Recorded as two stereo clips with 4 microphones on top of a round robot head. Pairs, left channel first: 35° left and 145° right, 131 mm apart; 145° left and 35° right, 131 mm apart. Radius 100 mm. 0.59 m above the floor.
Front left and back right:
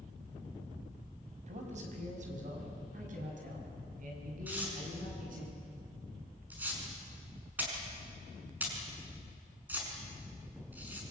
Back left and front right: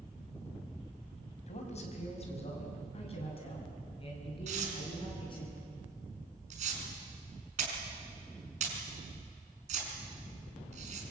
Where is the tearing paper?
70° right, 5.5 m.